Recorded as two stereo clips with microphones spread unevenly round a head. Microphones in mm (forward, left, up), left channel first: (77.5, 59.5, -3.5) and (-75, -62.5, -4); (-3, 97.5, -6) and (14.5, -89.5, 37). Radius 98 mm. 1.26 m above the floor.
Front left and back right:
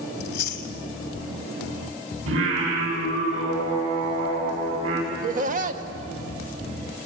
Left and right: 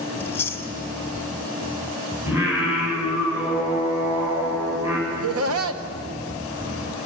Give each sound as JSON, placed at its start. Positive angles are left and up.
{"t": 0.2, "sound": "chewing", "azimuth_deg": 10, "distance_m": 1.8}
{"t": 2.3, "sound": "singing", "azimuth_deg": -160, "distance_m": 8.5}
{"t": 5.1, "sound": "laughter", "azimuth_deg": -90, "distance_m": 1.6}